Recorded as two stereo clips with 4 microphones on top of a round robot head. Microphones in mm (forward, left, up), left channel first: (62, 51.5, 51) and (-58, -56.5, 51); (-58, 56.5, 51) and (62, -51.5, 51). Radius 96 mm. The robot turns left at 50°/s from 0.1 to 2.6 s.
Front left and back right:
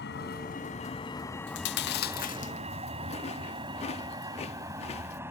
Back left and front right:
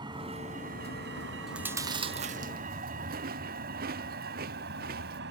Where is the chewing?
45° left; by 5.2 s 10° right.